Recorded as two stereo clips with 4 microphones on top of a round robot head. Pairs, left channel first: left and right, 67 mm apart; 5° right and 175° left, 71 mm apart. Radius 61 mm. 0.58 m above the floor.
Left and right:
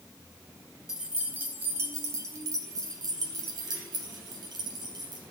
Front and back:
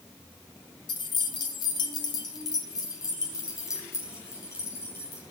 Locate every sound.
0.9 s keys jangling: 10° right, 1.9 m; by 5.2 s 70° right, 4.5 m